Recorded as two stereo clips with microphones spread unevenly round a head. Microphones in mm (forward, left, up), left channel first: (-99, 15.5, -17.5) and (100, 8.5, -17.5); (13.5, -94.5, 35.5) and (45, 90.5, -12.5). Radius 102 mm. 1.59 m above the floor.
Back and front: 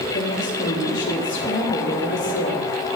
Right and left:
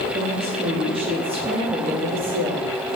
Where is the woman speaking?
145° left, 3.5 m.